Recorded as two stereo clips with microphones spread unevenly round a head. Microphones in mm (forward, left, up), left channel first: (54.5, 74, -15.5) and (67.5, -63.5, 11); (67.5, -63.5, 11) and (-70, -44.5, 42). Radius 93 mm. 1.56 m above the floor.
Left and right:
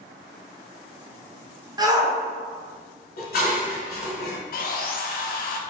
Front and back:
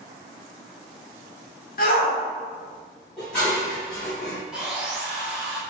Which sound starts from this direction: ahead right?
A shout, at 1.8 s.